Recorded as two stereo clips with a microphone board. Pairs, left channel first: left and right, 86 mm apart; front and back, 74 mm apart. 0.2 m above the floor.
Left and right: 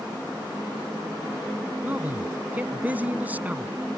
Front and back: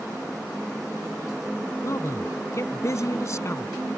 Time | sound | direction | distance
1.8 | a man speaking | 25° right | ?